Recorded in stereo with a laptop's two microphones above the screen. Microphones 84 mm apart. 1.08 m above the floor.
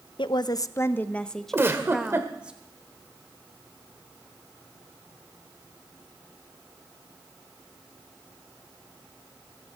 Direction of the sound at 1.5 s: 30° right (ahead or behind).